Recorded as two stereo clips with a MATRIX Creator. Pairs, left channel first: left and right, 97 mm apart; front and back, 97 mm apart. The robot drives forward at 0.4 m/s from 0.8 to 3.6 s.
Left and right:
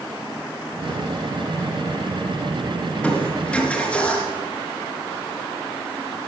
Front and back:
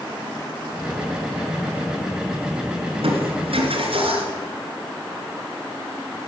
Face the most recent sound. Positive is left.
turn(degrees=170)